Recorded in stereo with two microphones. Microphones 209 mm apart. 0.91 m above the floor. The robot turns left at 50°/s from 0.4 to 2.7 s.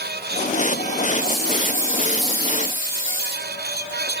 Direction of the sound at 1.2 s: 145° left.